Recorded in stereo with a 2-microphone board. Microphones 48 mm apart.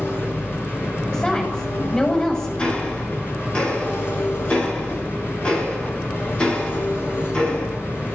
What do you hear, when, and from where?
0.0 s an engine running: 50° left (ahead or behind), 6.5 m
1.1 s a woman speaking: 15° left (ahead or behind), 8 m
2.6 s ticking: 20° left (ahead or behind), 9 m